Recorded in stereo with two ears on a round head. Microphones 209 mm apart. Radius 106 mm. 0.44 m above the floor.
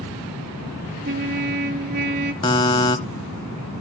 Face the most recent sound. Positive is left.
turn(degrees=20)  # may be behind; listen again after turning